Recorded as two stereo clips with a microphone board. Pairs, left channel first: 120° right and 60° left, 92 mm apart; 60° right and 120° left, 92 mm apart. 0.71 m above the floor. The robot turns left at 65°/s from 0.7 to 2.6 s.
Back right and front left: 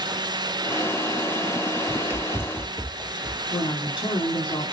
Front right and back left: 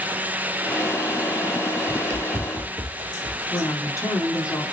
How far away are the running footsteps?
About 0.8 m.